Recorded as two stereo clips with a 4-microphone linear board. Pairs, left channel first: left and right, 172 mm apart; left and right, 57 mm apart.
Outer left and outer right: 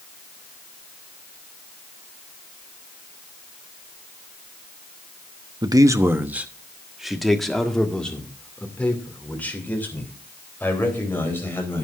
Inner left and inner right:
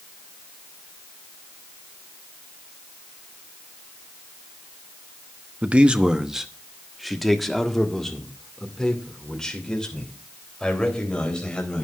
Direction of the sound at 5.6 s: 25° right (ahead or behind).